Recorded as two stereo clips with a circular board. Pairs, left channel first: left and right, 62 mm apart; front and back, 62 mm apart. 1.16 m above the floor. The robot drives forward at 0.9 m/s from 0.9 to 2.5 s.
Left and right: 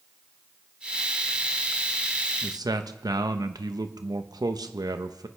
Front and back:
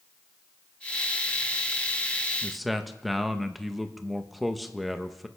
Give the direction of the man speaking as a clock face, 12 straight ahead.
3 o'clock.